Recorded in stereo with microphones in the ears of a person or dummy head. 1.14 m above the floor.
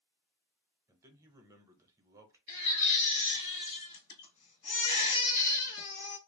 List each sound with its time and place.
0.9 s a man speaking: 15° right (ahead or behind), 0.8 m
2.5 s a baby crying: 70° left (ahead or behind), 1.2 m